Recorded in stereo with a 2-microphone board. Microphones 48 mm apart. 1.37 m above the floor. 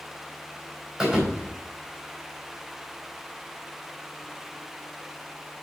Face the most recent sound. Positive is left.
turn(degrees=-5)  # may be behind; listen again after turning